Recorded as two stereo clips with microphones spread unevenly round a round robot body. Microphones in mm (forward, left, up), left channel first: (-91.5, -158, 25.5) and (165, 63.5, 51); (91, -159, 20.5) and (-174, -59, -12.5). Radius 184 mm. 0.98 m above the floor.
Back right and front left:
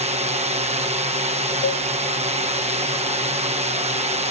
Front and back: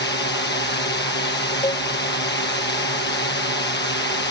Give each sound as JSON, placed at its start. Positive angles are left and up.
{"t": 0.0, "sound": "a drone", "azimuth_deg": -20}
{"t": 1.6, "sound": "a cowbell", "azimuth_deg": -95}